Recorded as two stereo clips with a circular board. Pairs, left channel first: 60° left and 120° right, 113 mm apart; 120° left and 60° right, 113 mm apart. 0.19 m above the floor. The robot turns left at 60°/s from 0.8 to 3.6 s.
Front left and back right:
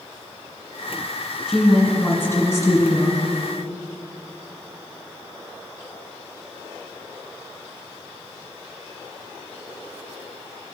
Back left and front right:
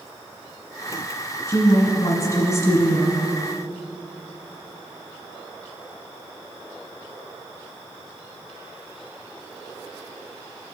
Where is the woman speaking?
160° left, 1.7 m; by 3.2 s 55° left, 1.7 m.